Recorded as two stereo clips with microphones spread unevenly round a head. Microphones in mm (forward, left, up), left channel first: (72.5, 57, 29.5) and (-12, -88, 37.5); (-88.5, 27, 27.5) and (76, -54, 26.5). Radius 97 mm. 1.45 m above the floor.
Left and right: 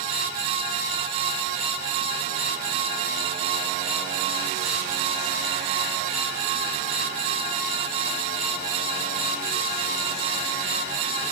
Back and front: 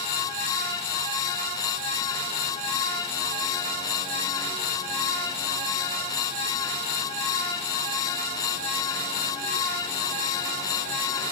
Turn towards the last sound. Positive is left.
No sound to turn to.